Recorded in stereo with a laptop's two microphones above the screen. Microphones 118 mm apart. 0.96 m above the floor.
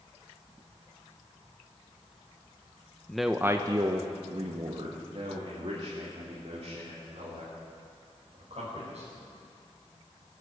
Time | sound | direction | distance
3.1 | a man speaking | 5° left (ahead or behind) | 0.7 m